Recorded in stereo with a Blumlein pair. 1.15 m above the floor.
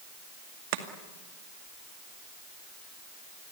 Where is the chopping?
45° right, 2 m.